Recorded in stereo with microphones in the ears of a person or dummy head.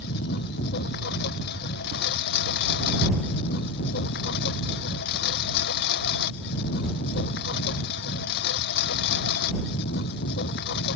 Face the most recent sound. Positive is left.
turn(degrees=60)  # may be behind; listen again after turning